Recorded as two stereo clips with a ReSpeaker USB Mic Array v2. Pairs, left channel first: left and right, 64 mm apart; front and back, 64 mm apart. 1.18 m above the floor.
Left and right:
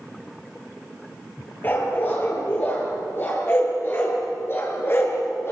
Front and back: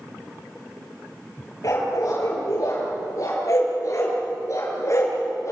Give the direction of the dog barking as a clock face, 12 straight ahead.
11 o'clock.